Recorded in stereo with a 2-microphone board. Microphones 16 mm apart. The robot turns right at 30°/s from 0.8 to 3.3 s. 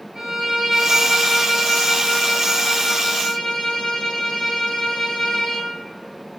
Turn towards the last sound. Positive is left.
turn(degrees=40)